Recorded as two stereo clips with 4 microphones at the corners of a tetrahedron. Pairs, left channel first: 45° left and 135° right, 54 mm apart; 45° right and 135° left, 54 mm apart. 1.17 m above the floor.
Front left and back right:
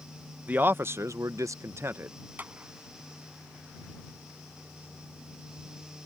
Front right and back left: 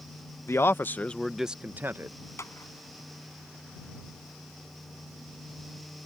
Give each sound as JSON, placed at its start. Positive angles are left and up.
{"t": 0.5, "sound": "a man speaking", "azimuth_deg": -75}
{"t": 2.4, "sound": "a clap", "azimuth_deg": -75}